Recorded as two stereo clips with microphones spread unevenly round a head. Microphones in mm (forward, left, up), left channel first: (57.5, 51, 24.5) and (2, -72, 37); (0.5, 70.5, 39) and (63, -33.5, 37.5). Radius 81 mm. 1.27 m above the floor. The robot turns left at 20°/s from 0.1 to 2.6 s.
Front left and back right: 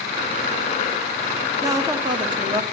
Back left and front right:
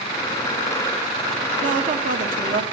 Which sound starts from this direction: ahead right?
A woman speaking, at 1.6 s.